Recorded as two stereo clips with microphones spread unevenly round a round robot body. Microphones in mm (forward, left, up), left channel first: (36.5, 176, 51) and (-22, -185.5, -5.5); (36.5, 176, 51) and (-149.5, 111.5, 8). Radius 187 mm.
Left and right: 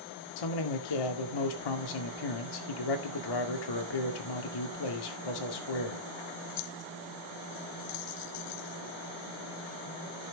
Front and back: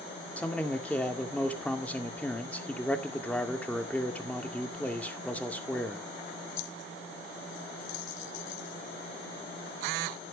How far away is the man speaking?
About 2 m.